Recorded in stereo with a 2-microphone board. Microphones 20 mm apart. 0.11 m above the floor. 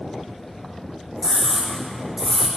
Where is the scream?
30° right (ahead or behind), 7 m.